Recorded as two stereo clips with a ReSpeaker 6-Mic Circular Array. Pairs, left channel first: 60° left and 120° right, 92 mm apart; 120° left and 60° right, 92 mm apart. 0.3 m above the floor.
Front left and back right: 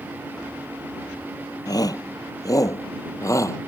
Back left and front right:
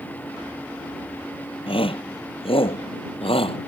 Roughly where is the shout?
Left.